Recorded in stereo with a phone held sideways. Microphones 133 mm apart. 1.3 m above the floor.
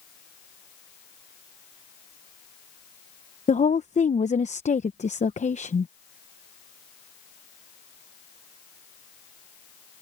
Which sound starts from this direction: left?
A woman speaking, at 3.5 s.